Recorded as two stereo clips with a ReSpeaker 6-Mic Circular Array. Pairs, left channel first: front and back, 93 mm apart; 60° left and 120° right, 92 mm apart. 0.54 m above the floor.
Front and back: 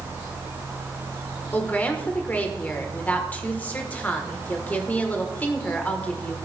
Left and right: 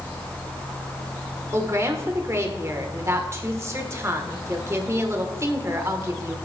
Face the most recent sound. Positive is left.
turn(degrees=-70)